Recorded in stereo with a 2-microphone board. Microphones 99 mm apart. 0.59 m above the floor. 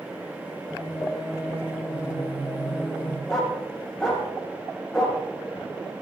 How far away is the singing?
About 5.5 m.